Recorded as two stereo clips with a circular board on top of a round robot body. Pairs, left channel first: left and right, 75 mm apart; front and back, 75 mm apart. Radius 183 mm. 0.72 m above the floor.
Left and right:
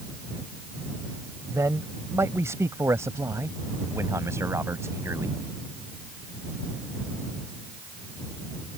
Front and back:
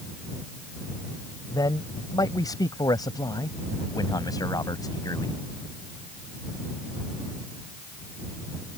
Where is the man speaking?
35° right.